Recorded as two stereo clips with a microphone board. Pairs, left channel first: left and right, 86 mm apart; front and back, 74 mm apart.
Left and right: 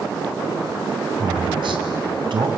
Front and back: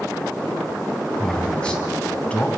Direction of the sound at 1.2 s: 80° right.